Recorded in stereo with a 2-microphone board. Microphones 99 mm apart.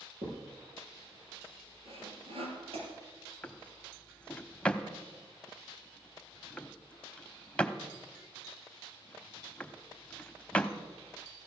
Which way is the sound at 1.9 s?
75° right (ahead or behind).